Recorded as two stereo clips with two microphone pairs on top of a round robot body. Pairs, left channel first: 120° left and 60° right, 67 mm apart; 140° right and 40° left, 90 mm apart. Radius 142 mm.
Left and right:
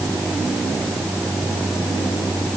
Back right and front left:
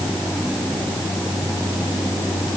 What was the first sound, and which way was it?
Only background noise.